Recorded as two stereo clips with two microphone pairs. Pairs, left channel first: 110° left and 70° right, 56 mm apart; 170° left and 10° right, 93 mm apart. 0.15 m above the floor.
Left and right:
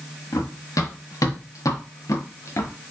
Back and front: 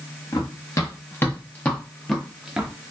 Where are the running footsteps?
120° left, 1.6 m; by 2.7 s 70° left, 1.1 m.